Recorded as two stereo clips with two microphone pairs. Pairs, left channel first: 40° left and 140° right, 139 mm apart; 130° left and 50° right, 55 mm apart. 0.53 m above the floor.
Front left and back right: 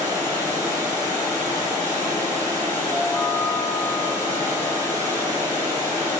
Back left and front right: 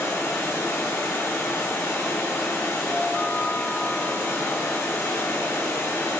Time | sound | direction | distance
0.0 | running water | 150° left | 6 m
2.9 | a chime | 65° left | 1.6 m